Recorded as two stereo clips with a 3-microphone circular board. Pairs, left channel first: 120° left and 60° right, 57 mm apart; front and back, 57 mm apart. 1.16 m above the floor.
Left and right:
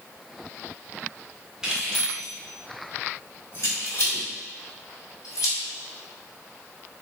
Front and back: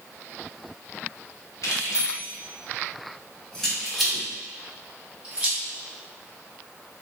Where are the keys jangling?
15° left, 1.2 m; by 5.6 s 110° left, 2.5 m.